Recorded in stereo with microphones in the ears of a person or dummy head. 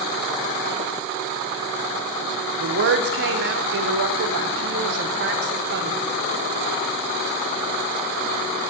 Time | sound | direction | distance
2.6 | a woman speaking | 65° right (ahead or behind) | 0.8 m